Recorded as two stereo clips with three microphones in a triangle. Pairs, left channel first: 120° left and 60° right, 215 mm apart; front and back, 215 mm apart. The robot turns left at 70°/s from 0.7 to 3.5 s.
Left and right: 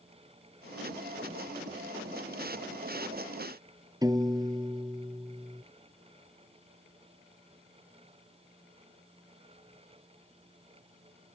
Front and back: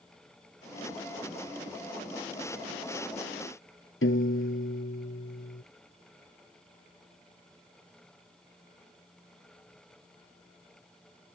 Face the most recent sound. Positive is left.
turn(degrees=10)